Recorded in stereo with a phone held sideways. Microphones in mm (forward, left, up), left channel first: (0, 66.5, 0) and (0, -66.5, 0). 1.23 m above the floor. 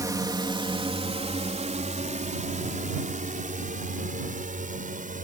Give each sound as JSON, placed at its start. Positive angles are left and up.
{"t": 0.0, "sound": "a drone", "side_deg": -25}